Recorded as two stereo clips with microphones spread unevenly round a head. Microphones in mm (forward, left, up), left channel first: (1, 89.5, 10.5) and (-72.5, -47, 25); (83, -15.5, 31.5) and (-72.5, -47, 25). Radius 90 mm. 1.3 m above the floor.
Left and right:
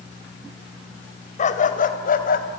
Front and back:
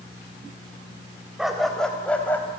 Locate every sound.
1.4 s a dog barking: 105° left, 3 m; by 2.5 s 90° left, 4 m